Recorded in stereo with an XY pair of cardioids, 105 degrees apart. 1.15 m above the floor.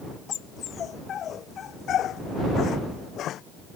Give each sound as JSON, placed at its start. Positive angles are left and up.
{"t": 0.3, "sound": "a dog barking", "azimuth_deg": 55}